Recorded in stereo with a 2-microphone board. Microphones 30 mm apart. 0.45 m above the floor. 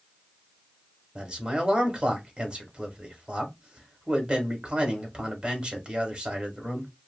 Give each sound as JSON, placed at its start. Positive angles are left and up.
{"t": 1.1, "sound": "a man speaking", "side_deg": -40, "distance_m": 1.2}